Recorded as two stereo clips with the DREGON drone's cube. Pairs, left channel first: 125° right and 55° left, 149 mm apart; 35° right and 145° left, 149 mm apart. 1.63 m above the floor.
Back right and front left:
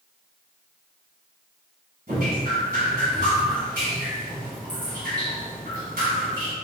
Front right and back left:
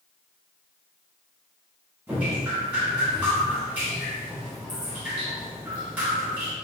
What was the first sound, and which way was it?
Dripping, 65° left.